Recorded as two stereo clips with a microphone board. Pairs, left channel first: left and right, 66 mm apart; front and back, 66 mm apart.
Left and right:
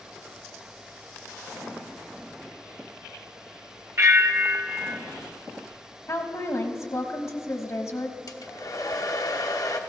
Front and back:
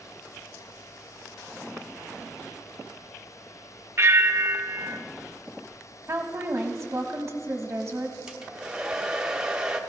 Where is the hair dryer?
100° left, 0.9 m.